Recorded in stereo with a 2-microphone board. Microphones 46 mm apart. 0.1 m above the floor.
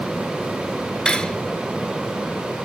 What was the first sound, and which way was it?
Cutlery clinking, 15° left (ahead or behind).